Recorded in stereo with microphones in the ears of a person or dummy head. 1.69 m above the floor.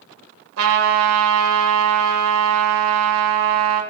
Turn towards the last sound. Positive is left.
turn(degrees=-80)